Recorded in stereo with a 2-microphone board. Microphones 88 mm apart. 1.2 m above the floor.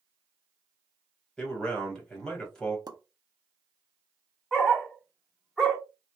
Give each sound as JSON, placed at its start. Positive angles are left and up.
{"t": 1.4, "sound": "a man speaking", "side_deg": 5, "distance_m": 1.2}
{"t": 2.9, "sound": "a pop", "side_deg": -50, "distance_m": 0.6}
{"t": 4.5, "sound": "a dog barking", "side_deg": 0, "distance_m": 0.8}